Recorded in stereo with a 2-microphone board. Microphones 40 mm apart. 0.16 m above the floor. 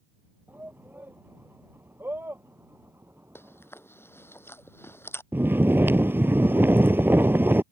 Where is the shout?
55° right (ahead or behind); by 3.7 s 75° right (ahead or behind).